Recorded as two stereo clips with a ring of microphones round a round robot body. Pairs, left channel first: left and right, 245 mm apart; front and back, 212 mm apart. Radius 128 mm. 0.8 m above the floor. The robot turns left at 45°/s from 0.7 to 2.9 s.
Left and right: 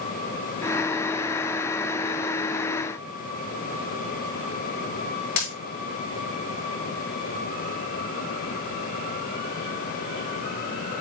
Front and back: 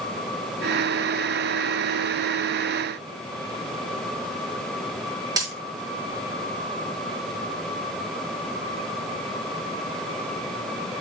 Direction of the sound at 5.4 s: 110° left.